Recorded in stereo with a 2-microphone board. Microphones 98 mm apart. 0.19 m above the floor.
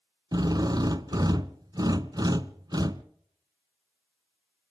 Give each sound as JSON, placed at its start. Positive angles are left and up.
{"t": 0.3, "sound": "a drill", "side_deg": -40, "distance_m": 0.7}